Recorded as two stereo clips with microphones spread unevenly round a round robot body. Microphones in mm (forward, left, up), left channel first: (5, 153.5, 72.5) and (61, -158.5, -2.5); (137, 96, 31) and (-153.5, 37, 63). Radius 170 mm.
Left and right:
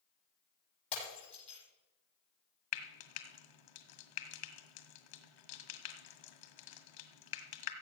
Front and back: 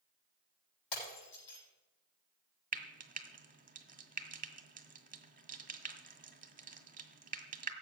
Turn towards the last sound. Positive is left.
turn(degrees=125)